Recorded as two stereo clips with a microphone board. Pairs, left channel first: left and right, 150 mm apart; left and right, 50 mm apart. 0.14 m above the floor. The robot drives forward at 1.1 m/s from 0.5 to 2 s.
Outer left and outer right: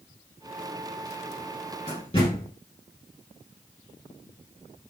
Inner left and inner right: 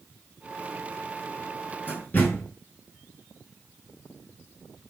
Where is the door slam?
30° left (ahead or behind), 5.5 m.